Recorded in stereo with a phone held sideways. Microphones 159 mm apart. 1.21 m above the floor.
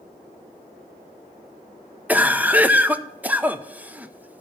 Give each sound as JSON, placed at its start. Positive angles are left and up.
{"t": 2.1, "sound": "a cough", "side_deg": -10, "distance_m": 0.6}